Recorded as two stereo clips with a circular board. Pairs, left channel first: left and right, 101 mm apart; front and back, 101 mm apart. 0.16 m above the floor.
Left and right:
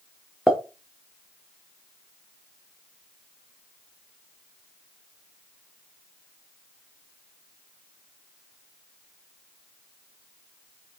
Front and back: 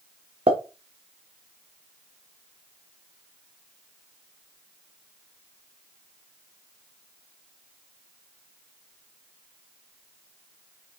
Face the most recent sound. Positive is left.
turn(degrees=180)